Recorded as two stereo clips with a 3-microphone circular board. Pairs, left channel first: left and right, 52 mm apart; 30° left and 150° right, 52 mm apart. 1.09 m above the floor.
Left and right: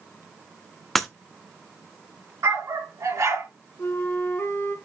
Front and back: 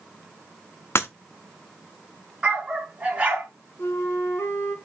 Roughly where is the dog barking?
Right.